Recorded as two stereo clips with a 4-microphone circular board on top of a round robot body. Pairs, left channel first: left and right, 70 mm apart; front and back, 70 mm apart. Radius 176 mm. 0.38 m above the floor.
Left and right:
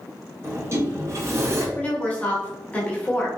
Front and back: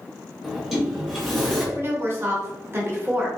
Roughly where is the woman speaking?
Behind left.